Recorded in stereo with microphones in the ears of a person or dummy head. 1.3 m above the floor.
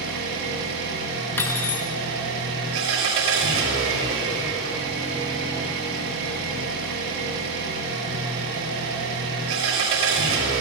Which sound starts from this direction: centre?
Cutlery clinking, at 1.4 s.